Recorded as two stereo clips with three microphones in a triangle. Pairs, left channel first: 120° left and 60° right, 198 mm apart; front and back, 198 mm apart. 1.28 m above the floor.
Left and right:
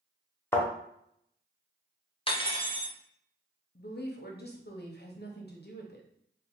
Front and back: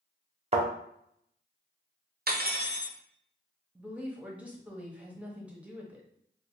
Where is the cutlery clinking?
175° left, 0.6 m.